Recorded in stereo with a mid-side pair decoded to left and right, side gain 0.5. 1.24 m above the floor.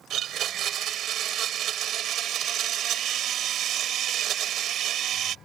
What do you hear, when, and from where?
0.1 s a blender: 65° right